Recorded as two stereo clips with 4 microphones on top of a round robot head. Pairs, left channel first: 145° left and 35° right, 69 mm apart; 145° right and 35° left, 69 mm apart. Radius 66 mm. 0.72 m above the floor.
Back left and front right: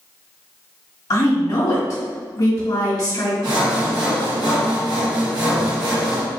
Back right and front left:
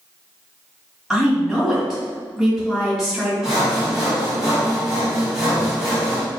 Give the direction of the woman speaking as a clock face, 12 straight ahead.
8 o'clock.